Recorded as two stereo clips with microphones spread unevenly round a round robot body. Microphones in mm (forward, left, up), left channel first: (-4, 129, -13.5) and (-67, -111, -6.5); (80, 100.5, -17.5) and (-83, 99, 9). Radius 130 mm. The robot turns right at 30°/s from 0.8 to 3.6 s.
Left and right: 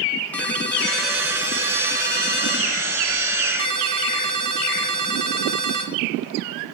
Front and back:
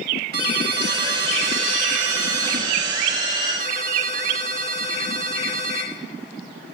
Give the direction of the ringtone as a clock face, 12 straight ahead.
7 o'clock.